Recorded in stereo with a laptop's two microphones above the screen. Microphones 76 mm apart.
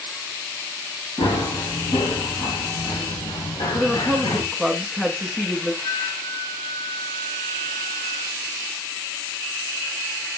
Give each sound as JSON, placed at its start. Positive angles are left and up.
{"t": 1.2, "sound": "running footsteps", "side_deg": 75, "distance_m": 5.0}
{"t": 3.7, "sound": "a woman speaking", "side_deg": 5, "distance_m": 1.6}
{"t": 5.8, "sound": "a flute", "side_deg": 60, "distance_m": 2.5}